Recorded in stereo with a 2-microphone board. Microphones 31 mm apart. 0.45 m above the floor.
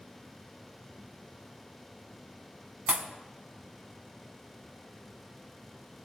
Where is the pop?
45° right (ahead or behind), 0.6 m.